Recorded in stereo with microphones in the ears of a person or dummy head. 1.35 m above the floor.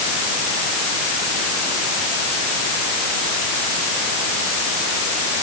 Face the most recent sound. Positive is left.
No sound to turn to.